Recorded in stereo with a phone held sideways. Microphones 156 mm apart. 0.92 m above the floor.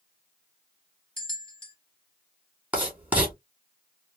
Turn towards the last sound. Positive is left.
turn(degrees=-10)  # may be behind; listen again after turning